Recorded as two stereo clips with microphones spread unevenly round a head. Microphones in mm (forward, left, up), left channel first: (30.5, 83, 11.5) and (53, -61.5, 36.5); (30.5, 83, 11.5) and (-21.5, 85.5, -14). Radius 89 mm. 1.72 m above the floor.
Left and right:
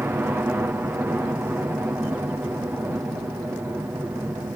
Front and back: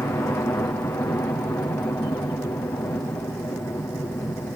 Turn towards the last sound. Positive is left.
turn(degrees=-5)